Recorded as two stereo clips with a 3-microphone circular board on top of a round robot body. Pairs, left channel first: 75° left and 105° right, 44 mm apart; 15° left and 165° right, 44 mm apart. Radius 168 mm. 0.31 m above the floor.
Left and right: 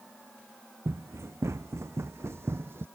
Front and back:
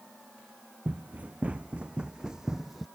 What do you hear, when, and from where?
0.8 s running footsteps: 105° right; by 2.9 s 75° right